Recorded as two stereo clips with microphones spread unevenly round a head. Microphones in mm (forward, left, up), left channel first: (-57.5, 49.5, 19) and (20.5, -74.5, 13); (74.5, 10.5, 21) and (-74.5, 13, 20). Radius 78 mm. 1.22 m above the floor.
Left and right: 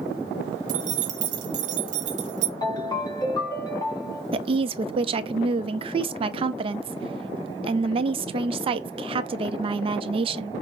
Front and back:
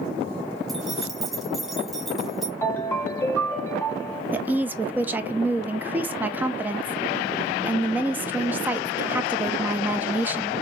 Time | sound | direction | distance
0.7 | keys jangling | 90° right | 0.7 m
2.6 | a ringtone | 70° left | 0.9 m
4.3 | a woman speaking | 105° right | 0.5 m